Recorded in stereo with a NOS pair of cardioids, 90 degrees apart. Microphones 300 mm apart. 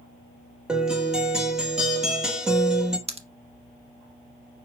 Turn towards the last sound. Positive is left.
turn(degrees=-20)